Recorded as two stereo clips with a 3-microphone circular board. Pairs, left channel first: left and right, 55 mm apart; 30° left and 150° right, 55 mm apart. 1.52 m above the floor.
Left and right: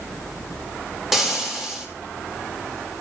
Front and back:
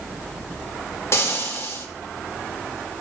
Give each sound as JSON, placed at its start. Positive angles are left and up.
{"t": 1.1, "sound": "frying", "azimuth_deg": -5, "distance_m": 2.5}